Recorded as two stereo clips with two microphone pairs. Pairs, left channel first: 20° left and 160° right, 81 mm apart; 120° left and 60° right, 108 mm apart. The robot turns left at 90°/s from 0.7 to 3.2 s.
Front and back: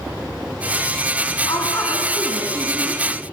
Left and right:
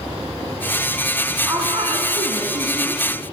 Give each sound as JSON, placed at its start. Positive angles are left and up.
{"t": 1.4, "sound": "a woman speaking", "azimuth_deg": 5, "distance_m": 2.5}